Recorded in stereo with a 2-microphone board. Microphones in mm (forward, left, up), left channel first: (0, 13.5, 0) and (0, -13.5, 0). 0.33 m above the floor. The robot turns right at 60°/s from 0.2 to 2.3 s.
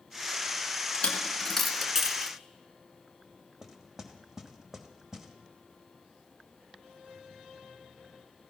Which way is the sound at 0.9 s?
45° left (ahead or behind).